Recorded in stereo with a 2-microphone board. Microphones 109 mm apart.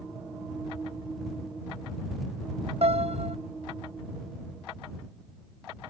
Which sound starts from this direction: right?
A piano, at 2.8 s.